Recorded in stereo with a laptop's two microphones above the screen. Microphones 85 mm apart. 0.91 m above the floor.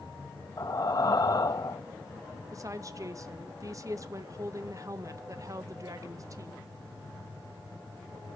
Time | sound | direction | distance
0.6 | breathing | 45° left (ahead or behind) | 0.9 m
2.5 | a woman speaking | 40° right (ahead or behind) | 0.6 m